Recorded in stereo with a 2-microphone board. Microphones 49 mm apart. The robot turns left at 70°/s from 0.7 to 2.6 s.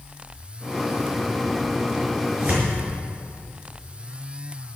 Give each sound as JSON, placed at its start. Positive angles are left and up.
{"t": 2.3, "sound": "tearing paper", "side_deg": -25, "distance_m": 6.0}